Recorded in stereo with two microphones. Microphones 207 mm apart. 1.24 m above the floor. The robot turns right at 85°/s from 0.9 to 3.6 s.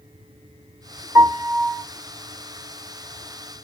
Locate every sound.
1.1 s a piano: 15° right (ahead or behind), 0.9 m; by 1.8 s 15° left (ahead or behind), 0.9 m